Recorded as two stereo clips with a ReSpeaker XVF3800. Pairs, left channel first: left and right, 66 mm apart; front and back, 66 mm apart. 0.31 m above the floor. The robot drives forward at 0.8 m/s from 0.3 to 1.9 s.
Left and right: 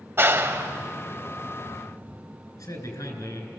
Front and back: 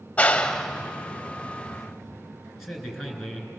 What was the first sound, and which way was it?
A clap, 60° right.